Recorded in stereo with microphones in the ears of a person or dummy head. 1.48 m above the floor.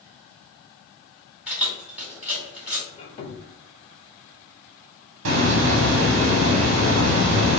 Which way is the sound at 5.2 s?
75° right (ahead or behind).